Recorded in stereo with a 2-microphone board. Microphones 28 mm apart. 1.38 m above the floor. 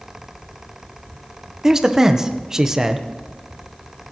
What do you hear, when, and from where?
1.6 s a man speaking: 15° right (ahead or behind), 1.0 m